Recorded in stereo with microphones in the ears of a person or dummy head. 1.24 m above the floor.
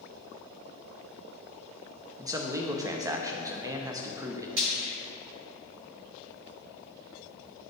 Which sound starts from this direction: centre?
A man speaking, at 2.2 s.